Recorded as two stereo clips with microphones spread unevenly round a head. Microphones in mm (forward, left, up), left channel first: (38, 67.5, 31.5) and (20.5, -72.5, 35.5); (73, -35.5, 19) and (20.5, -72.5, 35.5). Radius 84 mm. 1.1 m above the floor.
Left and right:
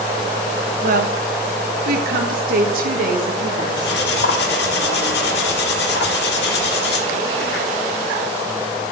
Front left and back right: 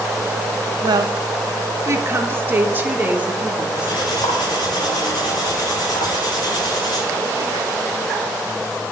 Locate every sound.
0.8 s a woman speaking: 125° right, 1.0 m; by 4.0 s 70° right, 2 m
3.8 s cutlery clinking: 85° left, 1.4 m